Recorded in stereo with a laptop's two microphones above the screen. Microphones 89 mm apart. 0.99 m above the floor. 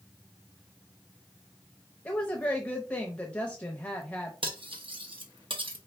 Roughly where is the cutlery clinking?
Right.